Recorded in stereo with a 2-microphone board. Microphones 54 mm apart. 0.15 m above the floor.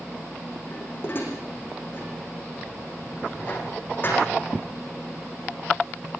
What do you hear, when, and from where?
0.7 s dishes clattering: 40° left (ahead or behind), 5.5 m